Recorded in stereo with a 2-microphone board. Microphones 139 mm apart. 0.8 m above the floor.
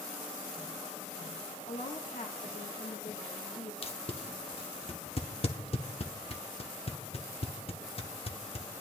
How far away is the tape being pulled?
About 0.9 m.